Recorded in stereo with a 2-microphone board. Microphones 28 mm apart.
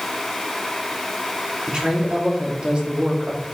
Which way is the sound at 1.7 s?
35° right (ahead or behind).